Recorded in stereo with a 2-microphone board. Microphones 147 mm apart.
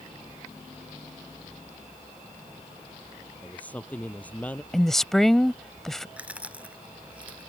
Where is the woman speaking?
5° left (ahead or behind).